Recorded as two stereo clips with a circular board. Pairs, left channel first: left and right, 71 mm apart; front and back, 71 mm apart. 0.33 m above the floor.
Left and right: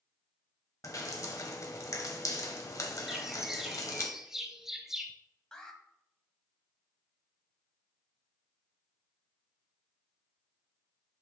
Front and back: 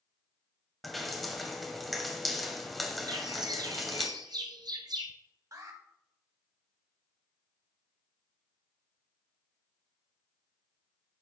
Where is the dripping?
85° left, 1.4 m.